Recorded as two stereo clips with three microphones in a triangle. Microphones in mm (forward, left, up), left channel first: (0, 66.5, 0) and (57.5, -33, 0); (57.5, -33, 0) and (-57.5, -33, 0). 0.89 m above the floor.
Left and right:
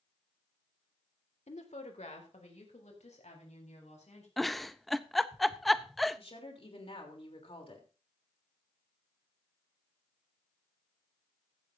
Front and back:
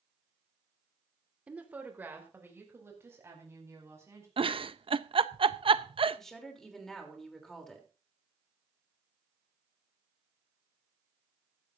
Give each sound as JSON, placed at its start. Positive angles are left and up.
{"t": 1.5, "sound": "a woman speaking", "azimuth_deg": 100, "distance_m": 1.9}
{"t": 4.4, "sound": "a giggle", "azimuth_deg": -150, "distance_m": 0.5}
{"t": 6.2, "sound": "a woman speaking", "azimuth_deg": 85, "distance_m": 3.0}